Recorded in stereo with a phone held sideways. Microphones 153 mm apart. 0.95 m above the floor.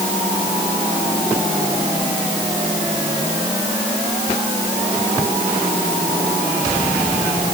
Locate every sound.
Only background noise.